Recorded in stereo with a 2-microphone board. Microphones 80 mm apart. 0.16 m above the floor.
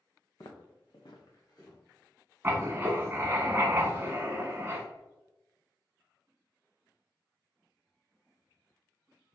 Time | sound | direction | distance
0.4 | footsteps | 55° left (ahead or behind) | 0.8 m
2.4 | writing | 25° right (ahead or behind) | 0.8 m